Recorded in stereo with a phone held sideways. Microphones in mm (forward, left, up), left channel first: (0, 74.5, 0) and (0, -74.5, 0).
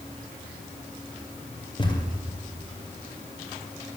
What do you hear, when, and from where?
1.8 s a thud: 30° left (ahead or behind), 1.9 m